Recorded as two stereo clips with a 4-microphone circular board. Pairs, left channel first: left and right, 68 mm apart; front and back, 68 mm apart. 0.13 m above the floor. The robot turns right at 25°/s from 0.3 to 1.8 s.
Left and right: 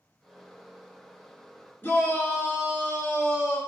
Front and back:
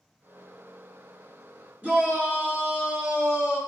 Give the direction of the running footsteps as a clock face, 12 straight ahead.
I don't hear running footsteps.